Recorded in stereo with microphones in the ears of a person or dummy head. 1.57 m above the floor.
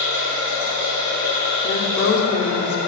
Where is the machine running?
70° right (ahead or behind), 1.7 m.